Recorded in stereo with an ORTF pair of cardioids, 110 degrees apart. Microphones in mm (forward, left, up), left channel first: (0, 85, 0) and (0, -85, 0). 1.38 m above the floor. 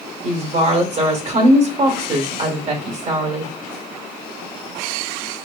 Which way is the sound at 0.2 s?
40° right.